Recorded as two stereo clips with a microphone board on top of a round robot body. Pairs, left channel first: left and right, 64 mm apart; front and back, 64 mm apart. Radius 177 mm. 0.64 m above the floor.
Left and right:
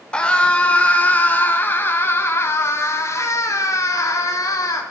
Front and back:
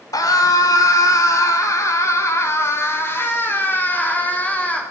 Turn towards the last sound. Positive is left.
turn(degrees=65)